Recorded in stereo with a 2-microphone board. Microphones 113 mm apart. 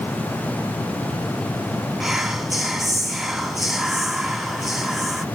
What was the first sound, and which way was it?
Whispering, centre (ahead or behind).